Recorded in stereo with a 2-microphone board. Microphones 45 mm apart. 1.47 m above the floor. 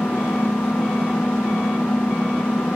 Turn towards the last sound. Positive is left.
turn(degrees=90)